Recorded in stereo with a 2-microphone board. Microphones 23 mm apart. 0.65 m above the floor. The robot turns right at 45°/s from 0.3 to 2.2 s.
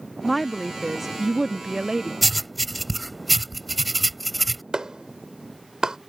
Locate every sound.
0.2 s a woman speaking: centre (ahead or behind); by 2.1 s 25° right (ahead or behind)
2.2 s writing: 5° left (ahead or behind)
4.7 s a clap: 35° right (ahead or behind)